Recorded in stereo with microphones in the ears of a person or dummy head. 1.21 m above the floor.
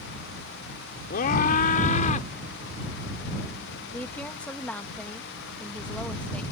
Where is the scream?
50° left (ahead or behind); by 2.3 s 40° left (ahead or behind).